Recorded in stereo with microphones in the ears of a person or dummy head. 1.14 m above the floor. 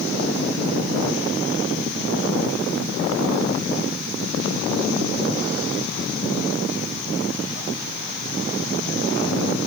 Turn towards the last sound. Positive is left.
No sound to turn to.